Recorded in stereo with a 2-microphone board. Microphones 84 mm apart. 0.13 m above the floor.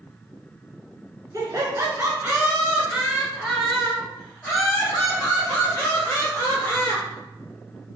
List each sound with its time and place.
1.3 s laughter: 40° right (ahead or behind), 1.3 m; by 7.0 s 25° left (ahead or behind), 3 m